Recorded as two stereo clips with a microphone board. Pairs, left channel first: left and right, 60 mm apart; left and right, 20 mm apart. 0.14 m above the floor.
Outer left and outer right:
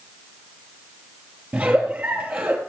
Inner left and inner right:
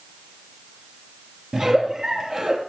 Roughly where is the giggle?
Right.